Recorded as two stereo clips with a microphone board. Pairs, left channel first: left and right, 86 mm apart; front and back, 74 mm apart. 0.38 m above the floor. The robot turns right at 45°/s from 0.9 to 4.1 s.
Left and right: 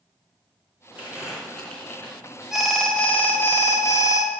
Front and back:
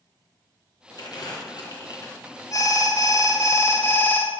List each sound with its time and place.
1.0 s crumpling: 20° right, 3 m; by 2.4 s 40° left, 3 m
2.5 s an alarm: 10° right, 1.6 m; by 4.3 s 65° left, 1.6 m